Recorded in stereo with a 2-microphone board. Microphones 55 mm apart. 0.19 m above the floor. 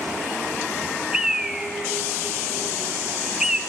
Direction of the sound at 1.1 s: 10° right (ahead or behind).